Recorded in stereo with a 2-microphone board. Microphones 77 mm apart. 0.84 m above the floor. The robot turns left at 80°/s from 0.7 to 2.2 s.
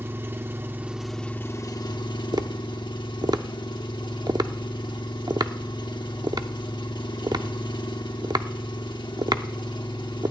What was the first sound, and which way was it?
An engine running, 150° right.